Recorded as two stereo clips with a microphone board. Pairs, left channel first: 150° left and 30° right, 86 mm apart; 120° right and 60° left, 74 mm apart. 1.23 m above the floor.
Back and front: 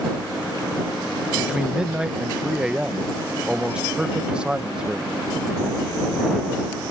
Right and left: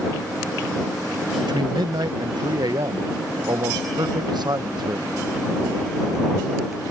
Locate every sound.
1.4 s a man speaking: 50° left